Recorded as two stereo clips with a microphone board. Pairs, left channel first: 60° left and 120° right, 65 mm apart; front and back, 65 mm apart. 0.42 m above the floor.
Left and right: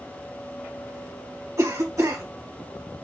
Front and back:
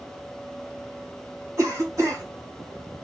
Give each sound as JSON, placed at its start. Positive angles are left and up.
{"t": 1.6, "sound": "a cough", "azimuth_deg": -145, "distance_m": 3.0}